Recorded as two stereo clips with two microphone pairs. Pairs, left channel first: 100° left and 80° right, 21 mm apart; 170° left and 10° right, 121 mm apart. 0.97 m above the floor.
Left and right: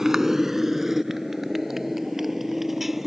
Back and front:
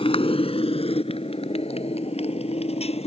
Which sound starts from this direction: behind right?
A motorcycle, at 0.0 s.